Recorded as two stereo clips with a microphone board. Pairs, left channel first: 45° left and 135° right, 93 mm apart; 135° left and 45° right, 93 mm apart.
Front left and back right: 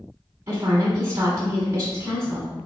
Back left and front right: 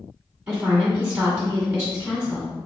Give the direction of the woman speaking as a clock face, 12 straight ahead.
4 o'clock.